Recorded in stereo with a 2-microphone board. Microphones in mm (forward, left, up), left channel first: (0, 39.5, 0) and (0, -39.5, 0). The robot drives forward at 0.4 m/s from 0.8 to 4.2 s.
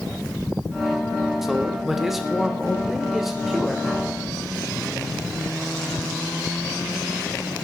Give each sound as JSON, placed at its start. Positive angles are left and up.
{"t": 1.4, "sound": "a man speaking", "side_deg": -5, "distance_m": 1.1}